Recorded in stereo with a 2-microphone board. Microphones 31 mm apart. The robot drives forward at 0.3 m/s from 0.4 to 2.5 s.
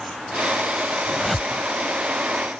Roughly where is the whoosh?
Centre.